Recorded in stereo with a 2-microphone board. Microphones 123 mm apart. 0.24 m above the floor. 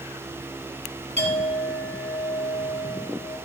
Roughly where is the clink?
Right.